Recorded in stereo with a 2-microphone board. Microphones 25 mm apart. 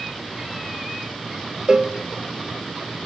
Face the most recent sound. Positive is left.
turn(degrees=-30)  # may be behind; listen again after turning